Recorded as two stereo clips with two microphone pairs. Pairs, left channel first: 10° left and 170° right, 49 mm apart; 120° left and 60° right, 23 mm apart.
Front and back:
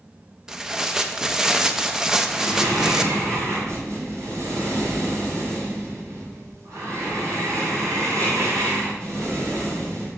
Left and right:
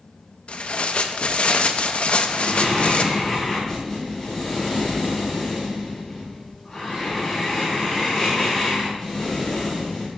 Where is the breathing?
160° right, 4.5 m.